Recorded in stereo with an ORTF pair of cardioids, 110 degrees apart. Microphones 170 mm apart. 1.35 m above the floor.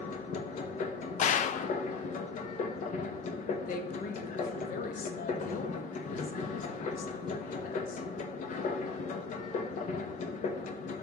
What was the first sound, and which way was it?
A machine running, 45° left.